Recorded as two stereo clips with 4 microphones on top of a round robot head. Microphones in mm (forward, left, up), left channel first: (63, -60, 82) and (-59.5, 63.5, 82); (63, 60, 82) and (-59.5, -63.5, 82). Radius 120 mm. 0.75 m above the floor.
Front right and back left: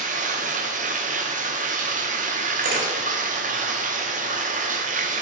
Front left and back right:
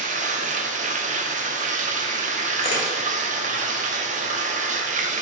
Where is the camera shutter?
105° left, 2 m.